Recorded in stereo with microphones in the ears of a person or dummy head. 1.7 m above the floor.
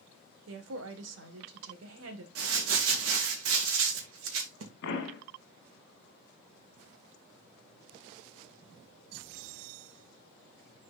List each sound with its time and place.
0.5 s a woman speaking: 80° right, 1.7 m
2.4 s crumpling: 85° right, 2 m
4.8 s a pop: 60° left (ahead or behind), 1.9 m